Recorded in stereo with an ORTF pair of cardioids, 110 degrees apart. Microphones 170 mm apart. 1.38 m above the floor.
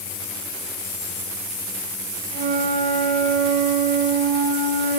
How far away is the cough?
No cough in this recording.